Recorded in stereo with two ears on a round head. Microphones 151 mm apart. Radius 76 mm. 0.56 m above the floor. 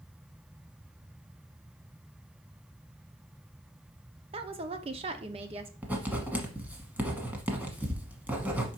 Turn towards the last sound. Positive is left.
turn(degrees=-10)  # may be behind; listen again after turning